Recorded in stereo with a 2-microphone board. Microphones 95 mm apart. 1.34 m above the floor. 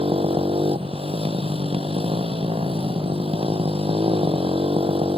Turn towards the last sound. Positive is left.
turn(degrees=-90)